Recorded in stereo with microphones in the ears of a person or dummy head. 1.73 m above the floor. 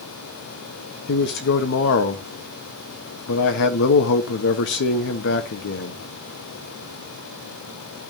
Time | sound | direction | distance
1.1 | a man speaking | 50° left (ahead or behind) | 1.1 m